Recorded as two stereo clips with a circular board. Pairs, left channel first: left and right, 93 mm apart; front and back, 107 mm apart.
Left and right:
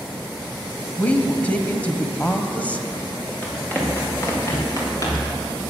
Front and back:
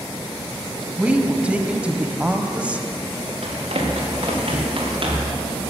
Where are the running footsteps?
165° left, 5 m; by 5.4 s 140° left, 5 m.